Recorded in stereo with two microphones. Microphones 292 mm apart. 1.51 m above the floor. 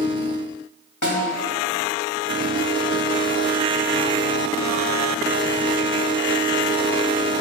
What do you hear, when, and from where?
1.0 s a snare drum: 70° left (ahead or behind), 2.5 m